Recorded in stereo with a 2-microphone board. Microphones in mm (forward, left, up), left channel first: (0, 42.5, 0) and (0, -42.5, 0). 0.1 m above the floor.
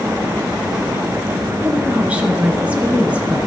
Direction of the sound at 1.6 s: 15° right (ahead or behind).